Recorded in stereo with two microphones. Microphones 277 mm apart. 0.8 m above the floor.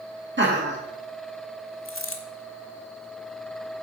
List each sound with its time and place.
0.4 s laughter: 40° right (ahead or behind), 1.6 m
1.9 s a dropped coin: 50° left (ahead or behind), 1.0 m